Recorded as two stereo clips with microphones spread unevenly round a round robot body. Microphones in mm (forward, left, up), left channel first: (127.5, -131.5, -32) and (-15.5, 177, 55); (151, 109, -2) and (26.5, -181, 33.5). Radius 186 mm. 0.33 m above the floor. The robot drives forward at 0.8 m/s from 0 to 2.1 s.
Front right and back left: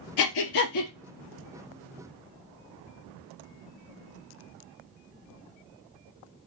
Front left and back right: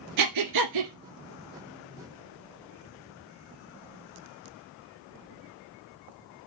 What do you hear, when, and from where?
0.2 s breathing: 95° right, 1.4 m; by 0.9 s 115° right, 1.6 m